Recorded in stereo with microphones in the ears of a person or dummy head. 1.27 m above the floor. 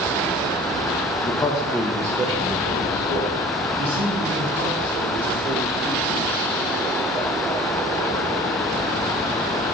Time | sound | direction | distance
1.2 | a man speaking | 40° left (ahead or behind) | 0.5 m